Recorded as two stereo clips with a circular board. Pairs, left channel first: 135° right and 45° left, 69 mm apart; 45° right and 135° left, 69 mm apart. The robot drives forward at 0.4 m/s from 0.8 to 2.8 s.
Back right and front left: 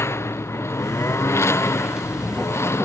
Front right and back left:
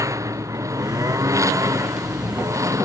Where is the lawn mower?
175° left.